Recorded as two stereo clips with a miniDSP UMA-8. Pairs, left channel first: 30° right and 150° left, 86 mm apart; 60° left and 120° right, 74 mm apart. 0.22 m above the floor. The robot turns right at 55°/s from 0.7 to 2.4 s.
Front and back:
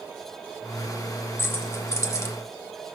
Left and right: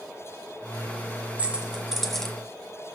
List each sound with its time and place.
1.4 s keys jangling: 70° right, 1.1 m; by 2.4 s 15° right, 1.1 m